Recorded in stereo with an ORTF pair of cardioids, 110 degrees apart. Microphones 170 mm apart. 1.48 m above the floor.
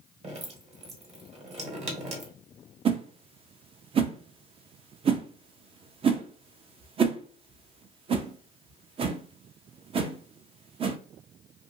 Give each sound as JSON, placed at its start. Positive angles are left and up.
{"t": 0.2, "sound": "dripping", "azimuth_deg": -40, "distance_m": 1.3}
{"t": 2.9, "sound": "a whoosh", "azimuth_deg": -35, "distance_m": 0.5}